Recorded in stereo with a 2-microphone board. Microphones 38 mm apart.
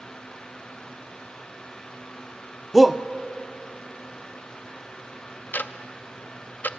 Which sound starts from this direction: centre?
A shout, at 2.7 s.